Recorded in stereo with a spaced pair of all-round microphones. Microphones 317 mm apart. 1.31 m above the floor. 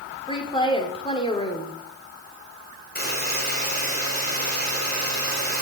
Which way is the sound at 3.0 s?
30° left (ahead or behind).